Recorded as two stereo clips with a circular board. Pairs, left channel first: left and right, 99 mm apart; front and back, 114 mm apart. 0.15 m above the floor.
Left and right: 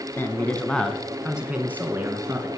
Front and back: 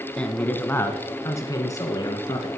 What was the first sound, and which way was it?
A man speaking, 65° left.